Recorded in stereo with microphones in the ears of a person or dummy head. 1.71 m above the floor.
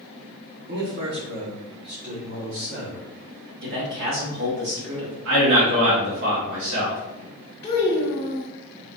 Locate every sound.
0.7 s a man speaking: 50° right (ahead or behind), 0.8 m; by 3.1 s 60° right (ahead or behind), 2.5 m
3.6 s a man speaking: 55° right (ahead or behind), 1.3 m
5.2 s a man speaking: 70° right (ahead or behind), 1.4 m
7.6 s a child speaking: 10° left (ahead or behind), 1.5 m